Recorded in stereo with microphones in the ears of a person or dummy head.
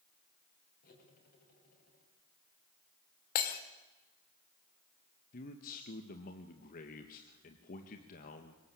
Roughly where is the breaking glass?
Left.